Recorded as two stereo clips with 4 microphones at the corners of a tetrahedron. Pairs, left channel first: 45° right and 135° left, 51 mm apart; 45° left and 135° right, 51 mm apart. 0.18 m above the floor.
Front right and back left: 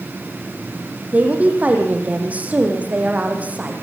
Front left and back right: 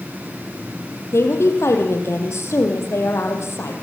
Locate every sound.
1.1 s a woman speaking: 75° left, 6 m